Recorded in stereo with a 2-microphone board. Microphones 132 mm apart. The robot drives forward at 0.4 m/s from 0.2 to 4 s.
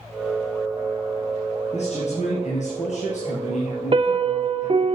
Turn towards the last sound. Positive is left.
turn(degrees=-40)  # may be behind; listen again after turning